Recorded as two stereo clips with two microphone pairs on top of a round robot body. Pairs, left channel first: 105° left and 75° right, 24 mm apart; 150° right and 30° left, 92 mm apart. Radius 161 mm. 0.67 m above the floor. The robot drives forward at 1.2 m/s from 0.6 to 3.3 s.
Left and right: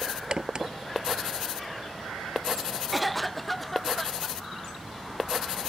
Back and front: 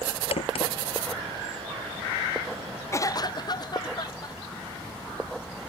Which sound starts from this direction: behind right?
A crack, at 0.3 s.